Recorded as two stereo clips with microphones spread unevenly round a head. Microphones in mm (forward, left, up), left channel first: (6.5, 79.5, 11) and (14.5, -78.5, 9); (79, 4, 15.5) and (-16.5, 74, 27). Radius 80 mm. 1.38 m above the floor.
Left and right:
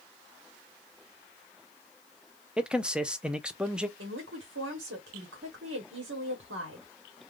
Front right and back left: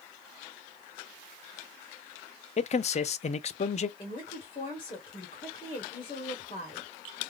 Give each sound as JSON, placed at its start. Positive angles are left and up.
{"t": 2.6, "sound": "a man speaking", "azimuth_deg": -5, "distance_m": 0.5}
{"t": 4.0, "sound": "a woman speaking", "azimuth_deg": -85, "distance_m": 1.2}